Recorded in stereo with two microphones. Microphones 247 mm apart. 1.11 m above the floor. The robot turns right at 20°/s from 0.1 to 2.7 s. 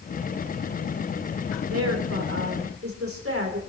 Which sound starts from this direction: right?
A woman speaking, at 1.7 s.